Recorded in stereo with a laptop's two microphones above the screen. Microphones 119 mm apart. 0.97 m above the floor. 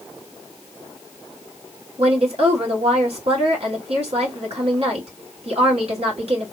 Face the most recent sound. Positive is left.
turn(degrees=-55)  # may be behind; listen again after turning